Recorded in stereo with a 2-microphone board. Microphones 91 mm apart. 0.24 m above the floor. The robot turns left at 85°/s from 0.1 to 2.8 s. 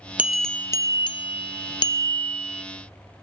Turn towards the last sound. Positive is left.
turn(degrees=-25)